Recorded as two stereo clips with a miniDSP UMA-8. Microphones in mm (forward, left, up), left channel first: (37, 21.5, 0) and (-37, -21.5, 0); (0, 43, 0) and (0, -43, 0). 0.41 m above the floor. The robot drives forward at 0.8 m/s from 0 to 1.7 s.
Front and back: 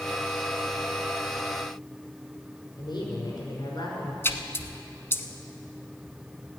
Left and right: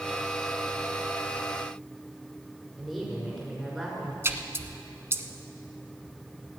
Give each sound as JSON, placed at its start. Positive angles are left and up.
{"t": 2.8, "sound": "a woman speaking", "azimuth_deg": 0, "distance_m": 5.5}
{"t": 4.2, "sound": "a splash", "azimuth_deg": -30, "distance_m": 0.8}